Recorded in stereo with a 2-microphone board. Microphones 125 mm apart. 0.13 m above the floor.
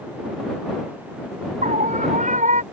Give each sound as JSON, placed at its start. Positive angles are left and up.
{"t": 1.6, "sound": "a scream", "side_deg": -85}